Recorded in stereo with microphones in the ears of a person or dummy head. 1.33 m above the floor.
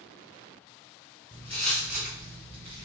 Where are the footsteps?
20° left (ahead or behind), 1.5 m; by 2.9 s 35° right (ahead or behind), 1.5 m.